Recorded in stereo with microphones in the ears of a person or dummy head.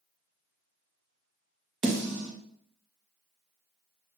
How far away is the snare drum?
About 1.2 m.